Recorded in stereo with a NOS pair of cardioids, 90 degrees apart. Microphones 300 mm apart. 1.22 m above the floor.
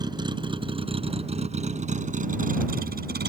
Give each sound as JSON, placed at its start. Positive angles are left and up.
{"t": 0.0, "sound": "a vehicle", "azimuth_deg": -15}